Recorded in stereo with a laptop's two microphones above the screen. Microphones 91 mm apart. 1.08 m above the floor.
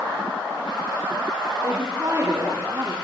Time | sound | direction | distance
1.6 | a woman speaking | 35° right (ahead or behind) | 4 m